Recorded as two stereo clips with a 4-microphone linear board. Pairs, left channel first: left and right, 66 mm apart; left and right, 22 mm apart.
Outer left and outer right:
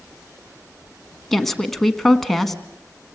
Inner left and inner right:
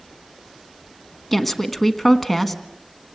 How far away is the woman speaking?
About 1.3 m.